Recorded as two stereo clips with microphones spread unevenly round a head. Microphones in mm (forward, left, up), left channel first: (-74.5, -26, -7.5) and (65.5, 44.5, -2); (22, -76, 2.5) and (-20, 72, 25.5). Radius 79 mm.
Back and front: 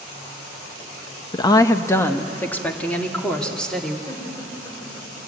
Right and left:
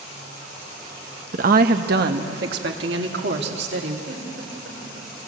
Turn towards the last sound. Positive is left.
turn(degrees=135)